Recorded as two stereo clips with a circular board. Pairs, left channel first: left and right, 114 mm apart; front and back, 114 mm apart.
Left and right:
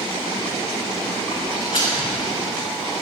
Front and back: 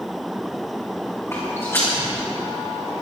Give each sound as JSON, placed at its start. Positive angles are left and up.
{"t": 1.3, "sound": "footsteps", "azimuth_deg": 65, "distance_m": 4.0}